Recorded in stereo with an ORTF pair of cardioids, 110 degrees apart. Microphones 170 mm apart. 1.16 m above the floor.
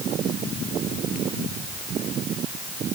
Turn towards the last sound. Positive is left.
No sound to turn to.